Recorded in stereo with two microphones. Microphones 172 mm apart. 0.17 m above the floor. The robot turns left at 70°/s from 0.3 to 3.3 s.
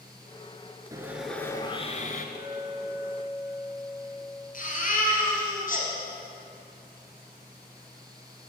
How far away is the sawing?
About 0.7 m.